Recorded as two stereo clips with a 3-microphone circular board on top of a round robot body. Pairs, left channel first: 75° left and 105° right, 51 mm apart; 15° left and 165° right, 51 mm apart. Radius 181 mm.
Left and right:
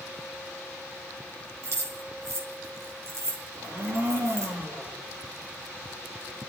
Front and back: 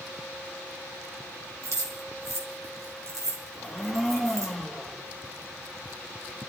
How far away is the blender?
About 6.5 m.